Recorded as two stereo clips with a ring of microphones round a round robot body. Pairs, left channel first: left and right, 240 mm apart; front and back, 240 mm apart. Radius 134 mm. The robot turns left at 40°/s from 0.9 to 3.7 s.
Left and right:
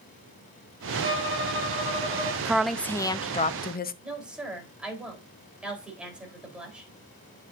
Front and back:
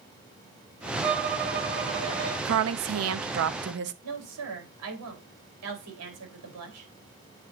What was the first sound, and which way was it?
A violin, 115° right.